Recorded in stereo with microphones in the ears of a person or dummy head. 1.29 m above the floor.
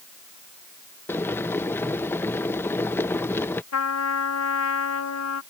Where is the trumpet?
85° left.